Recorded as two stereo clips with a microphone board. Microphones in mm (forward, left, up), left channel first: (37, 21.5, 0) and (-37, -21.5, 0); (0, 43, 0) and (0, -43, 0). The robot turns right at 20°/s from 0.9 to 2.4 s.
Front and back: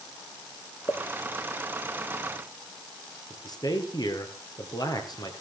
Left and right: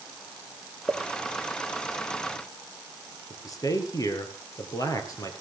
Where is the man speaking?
55° left, 3 m.